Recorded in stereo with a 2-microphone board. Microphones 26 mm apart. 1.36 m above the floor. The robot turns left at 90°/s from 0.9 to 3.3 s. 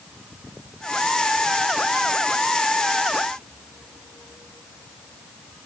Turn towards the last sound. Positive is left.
No sound to turn to.